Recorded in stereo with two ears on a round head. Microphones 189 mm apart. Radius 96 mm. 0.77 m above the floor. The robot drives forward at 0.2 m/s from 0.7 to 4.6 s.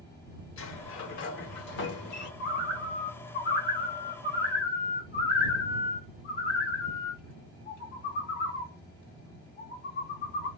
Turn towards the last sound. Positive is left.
turn(degrees=45)  # may be behind; listen again after turning